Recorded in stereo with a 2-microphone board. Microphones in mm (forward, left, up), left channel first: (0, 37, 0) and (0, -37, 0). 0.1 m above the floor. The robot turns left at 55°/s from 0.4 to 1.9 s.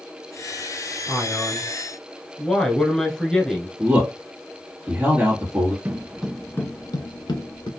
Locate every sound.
1.1 s a man speaking: 10° right (ahead or behind), 1.1 m; by 3.7 s 10° left (ahead or behind), 1.1 m
3.8 s a man speaking: 30° right (ahead or behind), 2 m
5.8 s footsteps: 30° right (ahead or behind), 0.7 m; by 7.7 s 85° left, 1.3 m